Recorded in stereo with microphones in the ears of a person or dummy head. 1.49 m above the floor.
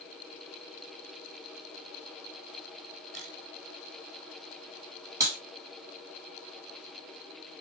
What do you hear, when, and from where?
3.1 s a camera shutter: 40° right (ahead or behind), 3.5 m
5.2 s a clap: 15° right (ahead or behind), 5 m